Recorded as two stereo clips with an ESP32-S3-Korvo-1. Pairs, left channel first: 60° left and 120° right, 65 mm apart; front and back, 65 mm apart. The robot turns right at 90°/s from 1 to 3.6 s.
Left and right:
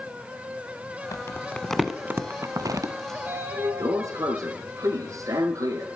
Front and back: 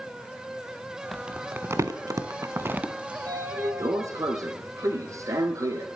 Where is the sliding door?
170° left, 1.5 m; by 5.9 s 145° right, 1.5 m.